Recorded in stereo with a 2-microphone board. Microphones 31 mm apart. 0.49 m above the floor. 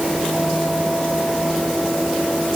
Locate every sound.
Only background noise.